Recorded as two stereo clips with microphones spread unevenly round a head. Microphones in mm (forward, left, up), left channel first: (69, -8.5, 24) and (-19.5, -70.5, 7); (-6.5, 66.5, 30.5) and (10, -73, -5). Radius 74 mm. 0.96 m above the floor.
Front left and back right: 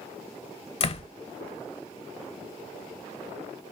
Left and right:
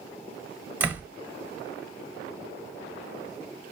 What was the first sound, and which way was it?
A door slam, 5° right.